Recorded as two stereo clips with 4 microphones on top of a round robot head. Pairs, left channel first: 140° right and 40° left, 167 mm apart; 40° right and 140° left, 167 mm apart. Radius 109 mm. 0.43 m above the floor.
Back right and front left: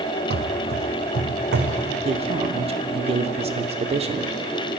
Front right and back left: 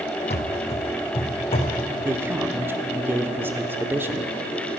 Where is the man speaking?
70° left, 0.9 m.